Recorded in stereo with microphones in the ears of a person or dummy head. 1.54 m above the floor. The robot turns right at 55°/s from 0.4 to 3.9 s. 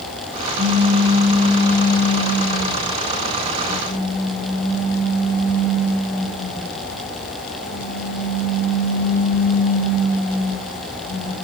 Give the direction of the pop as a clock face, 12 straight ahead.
1 o'clock.